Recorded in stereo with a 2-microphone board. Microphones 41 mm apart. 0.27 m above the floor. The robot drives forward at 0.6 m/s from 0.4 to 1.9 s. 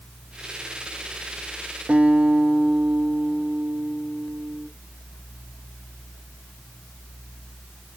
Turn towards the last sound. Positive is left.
turn(degrees=-35)  # may be behind; listen again after turning